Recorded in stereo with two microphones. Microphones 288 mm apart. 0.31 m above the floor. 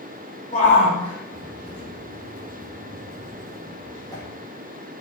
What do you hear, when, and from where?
0.5 s a shout: 25° left (ahead or behind), 10 m; by 4.2 s 10° left (ahead or behind), 11.5 m